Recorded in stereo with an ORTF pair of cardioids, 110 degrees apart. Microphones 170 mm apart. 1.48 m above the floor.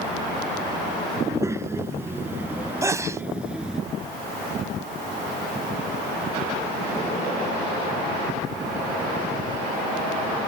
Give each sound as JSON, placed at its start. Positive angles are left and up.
{"t": 1.2, "sound": "a child speaking", "azimuth_deg": -15}
{"t": 2.8, "sound": "a sneeze", "azimuth_deg": -15}